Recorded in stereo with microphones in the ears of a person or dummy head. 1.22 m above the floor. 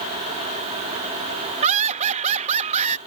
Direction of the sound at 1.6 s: 35° right (ahead or behind).